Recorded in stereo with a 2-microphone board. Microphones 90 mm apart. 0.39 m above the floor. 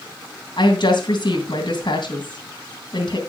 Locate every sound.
0.6 s a woman speaking: 60° left (ahead or behind), 2.5 m